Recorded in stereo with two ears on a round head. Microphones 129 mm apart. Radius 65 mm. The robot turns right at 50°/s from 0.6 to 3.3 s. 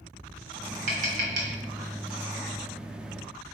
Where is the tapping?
50° right (ahead or behind), 2.5 m; by 1.6 s 75° right (ahead or behind), 2.5 m.